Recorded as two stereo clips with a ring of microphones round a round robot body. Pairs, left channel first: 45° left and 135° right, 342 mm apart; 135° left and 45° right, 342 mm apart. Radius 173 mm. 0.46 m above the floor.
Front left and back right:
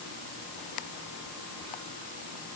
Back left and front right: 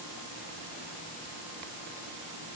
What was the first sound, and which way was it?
Only background noise.